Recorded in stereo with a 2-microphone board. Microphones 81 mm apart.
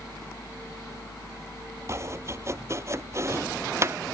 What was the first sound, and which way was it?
Chopping, 35° right (ahead or behind).